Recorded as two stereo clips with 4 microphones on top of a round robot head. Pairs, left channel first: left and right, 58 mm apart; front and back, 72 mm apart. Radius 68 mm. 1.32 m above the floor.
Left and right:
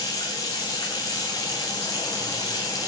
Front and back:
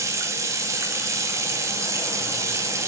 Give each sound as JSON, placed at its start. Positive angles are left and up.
{"t": 0.0, "sound": "running water", "azimuth_deg": 135, "distance_m": 2.0}